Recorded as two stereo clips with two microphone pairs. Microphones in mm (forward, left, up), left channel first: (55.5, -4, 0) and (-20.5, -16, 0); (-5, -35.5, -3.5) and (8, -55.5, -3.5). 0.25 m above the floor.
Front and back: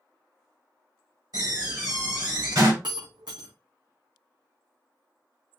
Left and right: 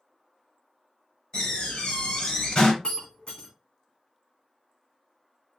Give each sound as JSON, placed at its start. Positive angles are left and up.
{"t": 1.3, "sound": "a door slam", "azimuth_deg": 155, "distance_m": 3.0}
{"t": 2.8, "sound": "breaking glass", "azimuth_deg": 165, "distance_m": 3.0}